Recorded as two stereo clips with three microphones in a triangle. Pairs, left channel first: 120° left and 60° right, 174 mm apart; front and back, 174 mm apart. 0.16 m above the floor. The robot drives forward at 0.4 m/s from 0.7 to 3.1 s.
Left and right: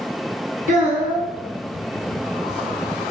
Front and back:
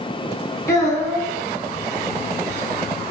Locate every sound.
0.7 s a child speaking: 65° right, 1.3 m; by 1.3 s 75° right, 1.3 m